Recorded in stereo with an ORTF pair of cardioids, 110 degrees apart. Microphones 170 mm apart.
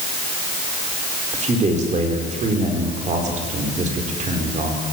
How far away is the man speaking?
About 4.5 m.